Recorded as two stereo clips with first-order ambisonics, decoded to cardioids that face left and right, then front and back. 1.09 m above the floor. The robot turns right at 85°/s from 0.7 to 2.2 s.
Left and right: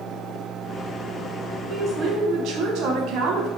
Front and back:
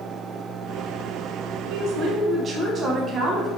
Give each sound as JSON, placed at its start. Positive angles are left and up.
{"t": 1.7, "sound": "a woman speaking", "azimuth_deg": -165, "distance_m": 0.8}